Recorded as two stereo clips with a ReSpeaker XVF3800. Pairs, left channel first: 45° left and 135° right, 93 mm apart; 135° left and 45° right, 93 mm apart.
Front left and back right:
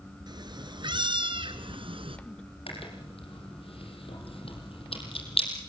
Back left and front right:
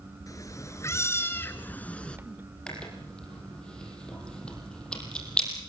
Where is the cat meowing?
175° right, 2.5 m; by 2.2 s 145° right, 2.0 m.